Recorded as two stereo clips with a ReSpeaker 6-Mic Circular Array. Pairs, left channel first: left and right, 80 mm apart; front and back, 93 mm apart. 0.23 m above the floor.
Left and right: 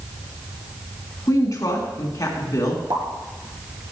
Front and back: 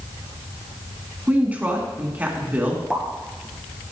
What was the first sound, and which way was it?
A woman speaking, 110° left.